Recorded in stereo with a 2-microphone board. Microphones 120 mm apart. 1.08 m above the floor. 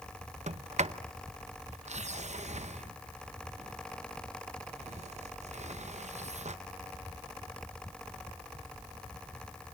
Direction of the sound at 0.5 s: 70° right (ahead or behind).